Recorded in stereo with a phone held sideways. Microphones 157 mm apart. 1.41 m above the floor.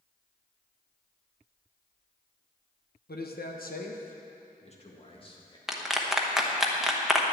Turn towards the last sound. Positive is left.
turn(degrees=0)  # may be behind; listen again after turning